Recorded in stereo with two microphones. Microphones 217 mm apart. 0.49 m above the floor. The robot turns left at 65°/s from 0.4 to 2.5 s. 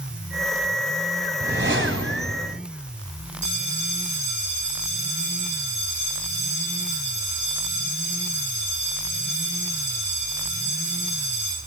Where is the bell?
35° right (ahead or behind), 5.5 m.